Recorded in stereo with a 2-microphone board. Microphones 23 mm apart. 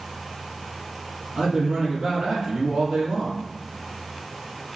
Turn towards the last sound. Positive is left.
turn(degrees=-70)  # may be behind; listen again after turning